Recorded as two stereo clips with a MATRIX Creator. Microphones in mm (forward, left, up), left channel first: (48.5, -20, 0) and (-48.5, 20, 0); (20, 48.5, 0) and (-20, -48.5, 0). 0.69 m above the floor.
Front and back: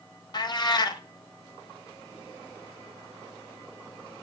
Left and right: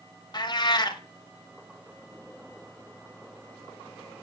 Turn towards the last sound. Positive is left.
turn(degrees=20)